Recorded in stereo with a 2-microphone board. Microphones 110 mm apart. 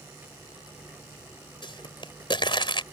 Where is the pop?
45° left (ahead or behind).